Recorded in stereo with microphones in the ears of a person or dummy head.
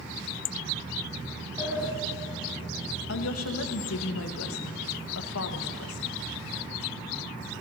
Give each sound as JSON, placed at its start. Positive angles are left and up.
{"t": 1.6, "sound": "a sliding door", "side_deg": -15, "distance_m": 2.0}
{"t": 3.1, "sound": "a woman speaking", "side_deg": 75, "distance_m": 1.4}